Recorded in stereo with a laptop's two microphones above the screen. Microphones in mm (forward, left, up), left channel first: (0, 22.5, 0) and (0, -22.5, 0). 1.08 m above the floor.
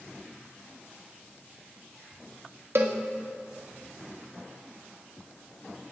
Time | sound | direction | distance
2.8 | a cowbell | 65° right (ahead or behind) | 1.6 m